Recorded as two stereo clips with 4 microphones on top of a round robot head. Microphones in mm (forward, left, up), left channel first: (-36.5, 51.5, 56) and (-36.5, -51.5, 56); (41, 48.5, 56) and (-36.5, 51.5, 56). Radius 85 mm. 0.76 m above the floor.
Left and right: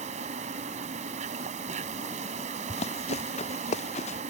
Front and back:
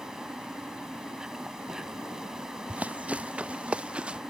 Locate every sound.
0.0 s an insect: 95° right
2.7 s running footsteps: 105° left; by 4.2 s 100° left